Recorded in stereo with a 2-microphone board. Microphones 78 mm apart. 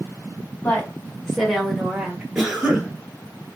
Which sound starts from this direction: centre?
A cough, at 2.4 s.